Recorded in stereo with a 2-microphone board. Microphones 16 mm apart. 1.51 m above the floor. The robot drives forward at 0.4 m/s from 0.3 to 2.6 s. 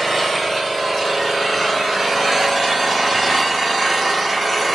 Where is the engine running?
5° right (ahead or behind), 1.2 m; by 4.8 s 10° right (ahead or behind), 1.0 m.